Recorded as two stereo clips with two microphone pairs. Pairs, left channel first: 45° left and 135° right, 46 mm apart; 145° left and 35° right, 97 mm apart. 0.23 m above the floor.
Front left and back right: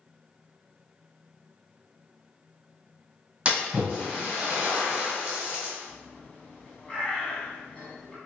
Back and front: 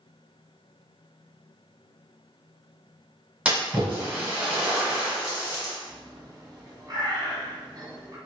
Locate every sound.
3.5 s a splash: 90° right, 1.4 m
5.9 s a bird: 15° right, 1.1 m